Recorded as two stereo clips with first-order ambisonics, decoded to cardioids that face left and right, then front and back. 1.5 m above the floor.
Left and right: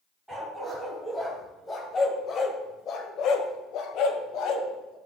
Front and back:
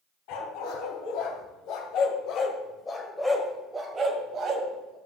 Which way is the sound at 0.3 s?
5° right.